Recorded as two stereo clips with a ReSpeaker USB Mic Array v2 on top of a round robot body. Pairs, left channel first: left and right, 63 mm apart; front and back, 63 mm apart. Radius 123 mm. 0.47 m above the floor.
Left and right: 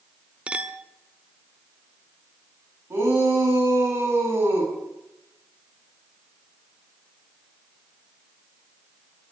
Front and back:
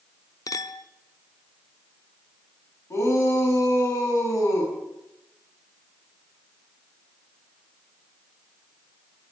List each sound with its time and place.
0.5 s a clink: 20° right, 1.1 m
2.9 s a shout: 40° right, 5.5 m